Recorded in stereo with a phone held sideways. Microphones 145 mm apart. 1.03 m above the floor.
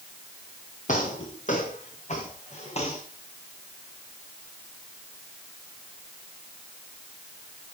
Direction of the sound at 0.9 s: 60° left (ahead or behind).